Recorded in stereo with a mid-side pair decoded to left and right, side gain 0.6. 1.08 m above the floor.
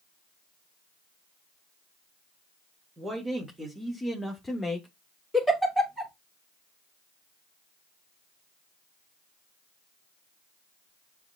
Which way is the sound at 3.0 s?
25° right.